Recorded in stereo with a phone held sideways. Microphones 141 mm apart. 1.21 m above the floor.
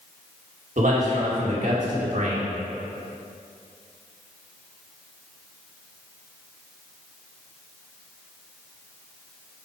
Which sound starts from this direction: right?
A man speaking, at 0.8 s.